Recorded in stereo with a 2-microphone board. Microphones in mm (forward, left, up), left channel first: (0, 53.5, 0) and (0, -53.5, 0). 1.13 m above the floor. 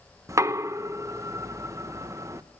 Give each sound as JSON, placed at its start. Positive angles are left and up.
{"t": 0.3, "sound": "knocking", "side_deg": -30, "distance_m": 0.7}